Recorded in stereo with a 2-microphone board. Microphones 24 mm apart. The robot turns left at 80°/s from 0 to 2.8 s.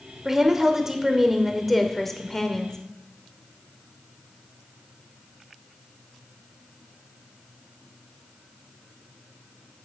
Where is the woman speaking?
20° right (ahead or behind), 0.8 m; by 2.8 s 20° left (ahead or behind), 0.8 m.